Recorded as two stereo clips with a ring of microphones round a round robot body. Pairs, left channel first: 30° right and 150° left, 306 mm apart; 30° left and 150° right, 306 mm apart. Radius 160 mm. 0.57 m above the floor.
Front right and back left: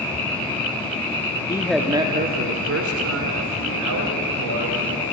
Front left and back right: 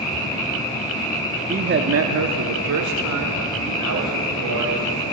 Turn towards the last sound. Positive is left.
turn(degrees=175)